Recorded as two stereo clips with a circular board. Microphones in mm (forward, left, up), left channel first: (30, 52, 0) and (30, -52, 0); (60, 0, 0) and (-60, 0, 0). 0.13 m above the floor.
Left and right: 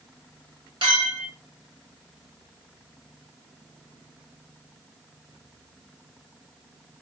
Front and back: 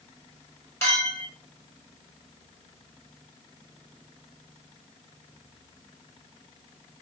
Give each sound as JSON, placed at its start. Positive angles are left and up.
{"t": 0.8, "sound": "a clink", "azimuth_deg": -65, "distance_m": 2.0}